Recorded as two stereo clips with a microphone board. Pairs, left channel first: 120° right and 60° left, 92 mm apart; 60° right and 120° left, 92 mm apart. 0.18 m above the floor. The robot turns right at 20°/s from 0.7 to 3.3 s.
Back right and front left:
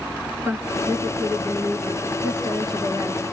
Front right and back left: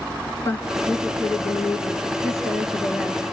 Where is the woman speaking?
Straight ahead, 2.5 m; by 3.2 s 50° left, 2.5 m.